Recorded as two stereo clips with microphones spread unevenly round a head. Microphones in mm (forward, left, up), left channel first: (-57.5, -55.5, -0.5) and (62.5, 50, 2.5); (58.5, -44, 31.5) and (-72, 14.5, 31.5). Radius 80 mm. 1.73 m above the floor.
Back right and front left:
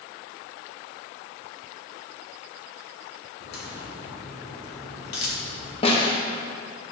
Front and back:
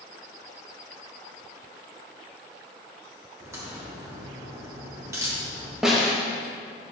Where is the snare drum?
120° right, 1.0 m.